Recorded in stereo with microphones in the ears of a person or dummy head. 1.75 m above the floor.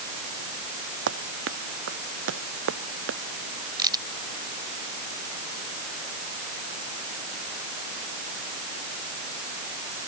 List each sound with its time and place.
1.1 s running footsteps: 65° right (ahead or behind); by 3.2 s 70° right (ahead or behind)
3.8 s a crack: 25° right (ahead or behind)